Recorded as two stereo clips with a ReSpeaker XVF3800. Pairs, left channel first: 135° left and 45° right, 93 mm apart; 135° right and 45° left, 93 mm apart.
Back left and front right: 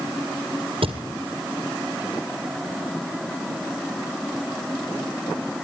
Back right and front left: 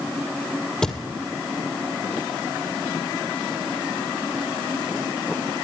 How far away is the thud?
About 1.9 m.